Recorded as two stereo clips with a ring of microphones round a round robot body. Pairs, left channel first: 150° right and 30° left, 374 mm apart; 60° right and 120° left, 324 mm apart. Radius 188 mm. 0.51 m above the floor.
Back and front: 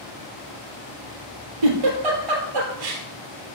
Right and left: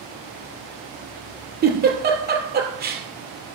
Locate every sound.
1.6 s a giggle: 60° left, 2.5 m